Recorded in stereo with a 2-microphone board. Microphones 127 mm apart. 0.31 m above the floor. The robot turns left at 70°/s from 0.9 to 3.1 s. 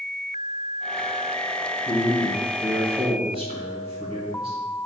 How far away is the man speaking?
About 2 m.